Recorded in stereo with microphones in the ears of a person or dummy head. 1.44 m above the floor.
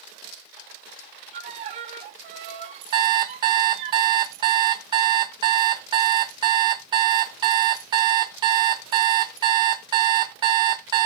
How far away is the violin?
About 1.3 m.